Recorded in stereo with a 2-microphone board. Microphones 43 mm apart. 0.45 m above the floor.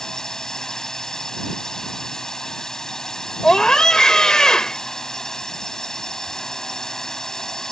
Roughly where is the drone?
Centre.